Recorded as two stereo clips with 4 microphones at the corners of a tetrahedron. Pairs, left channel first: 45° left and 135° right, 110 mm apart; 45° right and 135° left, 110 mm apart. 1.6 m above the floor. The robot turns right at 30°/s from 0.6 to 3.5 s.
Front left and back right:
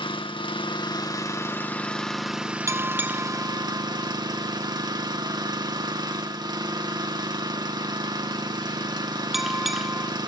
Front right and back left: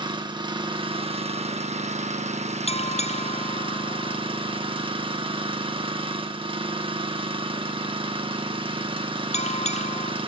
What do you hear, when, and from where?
0.0 s an engine running: 85° left, 1.5 m; by 10.3 s 175° left, 1.5 m
2.7 s a bell: 70° right, 0.6 m; by 10.1 s 45° right, 0.6 m